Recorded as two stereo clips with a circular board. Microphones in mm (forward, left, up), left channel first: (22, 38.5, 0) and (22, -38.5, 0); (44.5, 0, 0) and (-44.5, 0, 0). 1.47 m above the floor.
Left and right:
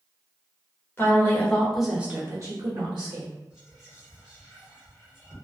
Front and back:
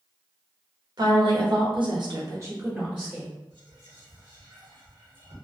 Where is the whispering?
Straight behind, 1.1 m.